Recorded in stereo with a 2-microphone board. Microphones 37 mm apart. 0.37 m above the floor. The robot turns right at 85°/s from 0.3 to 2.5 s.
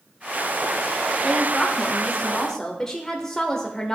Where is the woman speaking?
5° left (ahead or behind), 0.8 m; by 4.0 s 15° left (ahead or behind), 0.8 m.